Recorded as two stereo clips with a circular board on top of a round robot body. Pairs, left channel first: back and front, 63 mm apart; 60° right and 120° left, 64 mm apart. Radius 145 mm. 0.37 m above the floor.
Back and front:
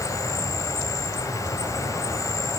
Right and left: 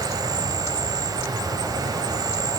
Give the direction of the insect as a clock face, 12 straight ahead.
7 o'clock.